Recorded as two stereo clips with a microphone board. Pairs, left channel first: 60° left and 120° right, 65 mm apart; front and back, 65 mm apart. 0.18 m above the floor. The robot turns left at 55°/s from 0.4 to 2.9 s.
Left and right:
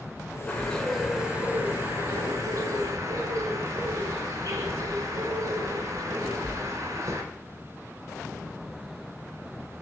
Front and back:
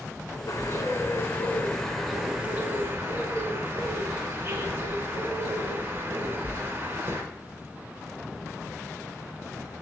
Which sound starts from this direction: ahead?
A bird, at 0.5 s.